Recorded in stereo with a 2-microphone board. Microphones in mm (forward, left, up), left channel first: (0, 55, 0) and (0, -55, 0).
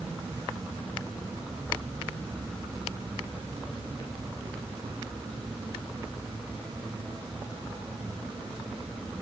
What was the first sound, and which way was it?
Only background noise.